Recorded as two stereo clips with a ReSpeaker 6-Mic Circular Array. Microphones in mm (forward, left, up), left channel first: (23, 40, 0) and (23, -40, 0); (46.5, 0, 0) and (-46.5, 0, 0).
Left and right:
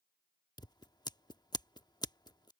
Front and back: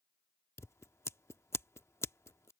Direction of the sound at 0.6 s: 60° left.